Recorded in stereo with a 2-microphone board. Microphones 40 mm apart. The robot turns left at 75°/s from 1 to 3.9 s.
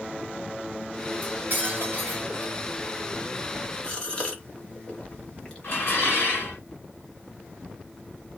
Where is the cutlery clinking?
35° right, 1.3 m; by 2.5 s 130° right, 1.3 m.